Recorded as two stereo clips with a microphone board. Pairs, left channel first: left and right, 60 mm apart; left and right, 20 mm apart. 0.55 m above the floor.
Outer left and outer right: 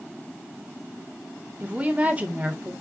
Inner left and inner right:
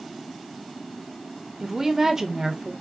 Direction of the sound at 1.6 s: 20° right (ahead or behind).